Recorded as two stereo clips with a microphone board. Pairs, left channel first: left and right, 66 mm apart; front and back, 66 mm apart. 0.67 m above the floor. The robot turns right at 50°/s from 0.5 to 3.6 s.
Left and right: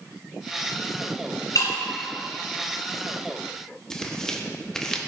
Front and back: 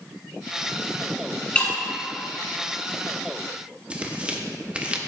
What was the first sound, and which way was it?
Breaking glass, 70° left.